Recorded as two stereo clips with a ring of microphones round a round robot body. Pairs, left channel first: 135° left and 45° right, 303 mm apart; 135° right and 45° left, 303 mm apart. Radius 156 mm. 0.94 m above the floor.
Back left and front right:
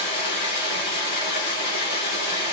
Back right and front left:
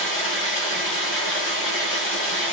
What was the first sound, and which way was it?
Running water, 170° left.